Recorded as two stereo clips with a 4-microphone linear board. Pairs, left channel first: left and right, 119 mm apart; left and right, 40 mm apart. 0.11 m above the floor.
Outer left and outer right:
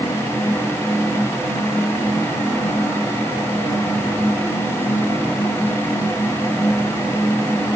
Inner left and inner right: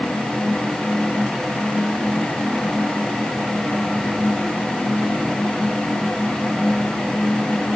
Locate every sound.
Only background noise.